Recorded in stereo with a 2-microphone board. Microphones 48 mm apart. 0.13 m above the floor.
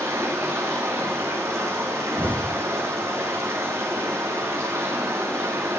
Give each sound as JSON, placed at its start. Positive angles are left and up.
{"t": 0.0, "sound": "running water", "side_deg": -70, "distance_m": 8.5}
{"t": 2.2, "sound": "an explosion", "side_deg": 35, "distance_m": 1.1}